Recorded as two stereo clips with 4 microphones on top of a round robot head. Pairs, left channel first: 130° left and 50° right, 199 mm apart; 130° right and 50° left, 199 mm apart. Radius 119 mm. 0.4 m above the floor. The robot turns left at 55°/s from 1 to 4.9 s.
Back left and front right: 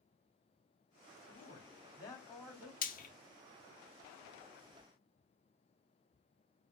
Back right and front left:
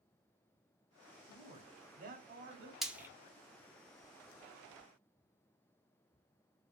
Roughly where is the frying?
Behind left.